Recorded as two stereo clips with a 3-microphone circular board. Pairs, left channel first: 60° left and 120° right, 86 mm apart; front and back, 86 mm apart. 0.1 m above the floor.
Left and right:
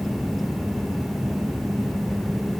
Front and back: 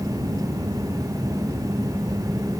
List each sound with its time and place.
Only background noise.